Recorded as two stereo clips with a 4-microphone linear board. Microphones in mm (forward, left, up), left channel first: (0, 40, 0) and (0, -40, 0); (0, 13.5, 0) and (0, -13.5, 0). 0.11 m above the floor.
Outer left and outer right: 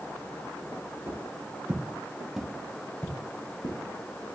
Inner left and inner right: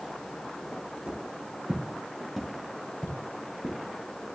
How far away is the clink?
No clink in this recording.